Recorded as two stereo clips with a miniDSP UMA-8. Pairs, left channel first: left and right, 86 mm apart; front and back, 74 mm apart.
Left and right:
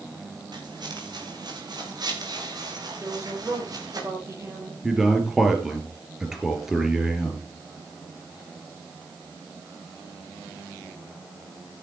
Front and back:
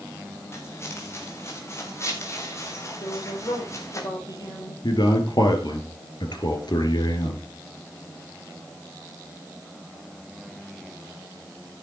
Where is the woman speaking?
35° right, 7 m.